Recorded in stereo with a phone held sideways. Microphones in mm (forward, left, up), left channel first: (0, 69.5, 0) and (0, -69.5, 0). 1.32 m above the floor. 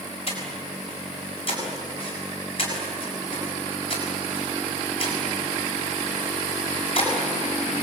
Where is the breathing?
40° left (ahead or behind), 7 m.